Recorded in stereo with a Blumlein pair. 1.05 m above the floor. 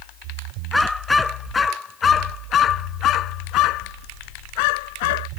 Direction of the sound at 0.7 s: 5° left.